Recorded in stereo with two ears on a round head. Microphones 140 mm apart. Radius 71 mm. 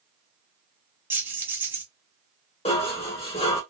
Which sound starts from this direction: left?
Dishes clattering, at 2.6 s.